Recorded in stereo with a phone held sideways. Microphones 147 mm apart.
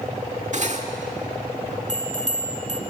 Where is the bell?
55° right (ahead or behind), 1.8 m.